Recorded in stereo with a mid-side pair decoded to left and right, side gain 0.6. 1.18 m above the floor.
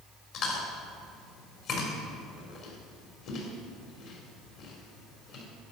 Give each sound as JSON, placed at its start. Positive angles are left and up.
{"t": 0.3, "sound": "chewing", "azimuth_deg": 65, "distance_m": 3.0}